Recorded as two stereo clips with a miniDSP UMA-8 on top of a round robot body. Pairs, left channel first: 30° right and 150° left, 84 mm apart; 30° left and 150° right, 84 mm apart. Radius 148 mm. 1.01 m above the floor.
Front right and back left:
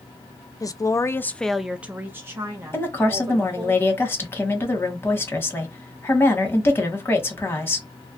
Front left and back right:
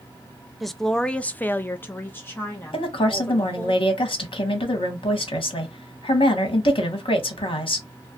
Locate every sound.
0.6 s a woman speaking: 60° right, 0.6 m; by 3.7 s 100° left, 1.3 m
2.7 s a woman speaking: 35° left, 1.1 m